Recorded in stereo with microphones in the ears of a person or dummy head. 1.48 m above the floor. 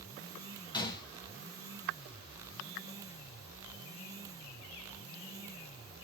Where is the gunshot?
25° left (ahead or behind), 0.5 m.